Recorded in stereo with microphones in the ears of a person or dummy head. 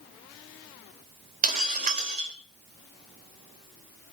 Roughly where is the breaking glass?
Right.